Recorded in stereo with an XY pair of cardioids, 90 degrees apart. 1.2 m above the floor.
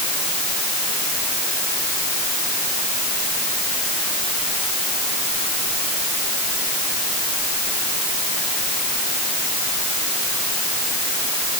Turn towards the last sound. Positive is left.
No sound to turn to.